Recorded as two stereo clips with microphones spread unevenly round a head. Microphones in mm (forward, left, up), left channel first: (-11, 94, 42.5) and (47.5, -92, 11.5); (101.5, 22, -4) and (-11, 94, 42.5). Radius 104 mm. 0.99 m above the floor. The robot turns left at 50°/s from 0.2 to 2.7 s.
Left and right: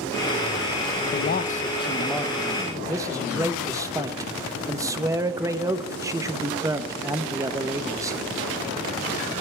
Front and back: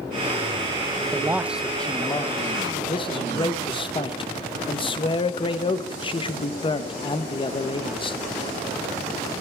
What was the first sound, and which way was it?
A man speaking, 75° left.